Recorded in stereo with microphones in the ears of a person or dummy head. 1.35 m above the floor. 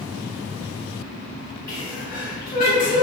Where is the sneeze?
20° left (ahead or behind), 1.3 m.